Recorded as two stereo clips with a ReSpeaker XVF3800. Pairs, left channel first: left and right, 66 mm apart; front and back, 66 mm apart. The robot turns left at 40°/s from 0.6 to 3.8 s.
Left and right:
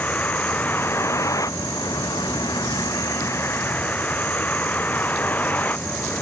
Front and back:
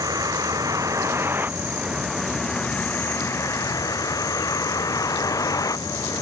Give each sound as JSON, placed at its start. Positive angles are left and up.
{"t": 0.0, "sound": "a vehicle", "azimuth_deg": 155}